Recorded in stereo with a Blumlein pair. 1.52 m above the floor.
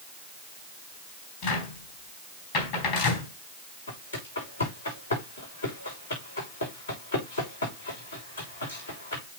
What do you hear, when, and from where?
1.4 s a cupboard door: 45° left, 4 m
3.9 s footsteps: 65° left, 6 m